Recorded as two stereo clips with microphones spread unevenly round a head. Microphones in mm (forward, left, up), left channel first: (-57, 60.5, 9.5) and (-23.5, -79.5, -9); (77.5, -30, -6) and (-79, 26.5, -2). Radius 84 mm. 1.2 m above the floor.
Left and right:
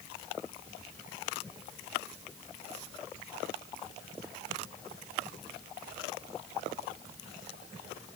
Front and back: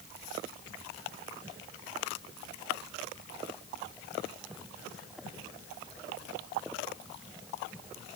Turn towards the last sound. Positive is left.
No sound to turn to.